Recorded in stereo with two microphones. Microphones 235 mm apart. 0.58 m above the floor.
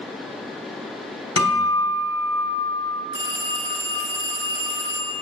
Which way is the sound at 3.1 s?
55° right (ahead or behind).